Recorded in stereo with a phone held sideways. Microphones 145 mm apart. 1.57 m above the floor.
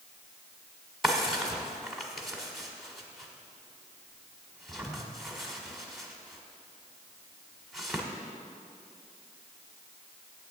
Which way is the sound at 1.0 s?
Centre (ahead or behind).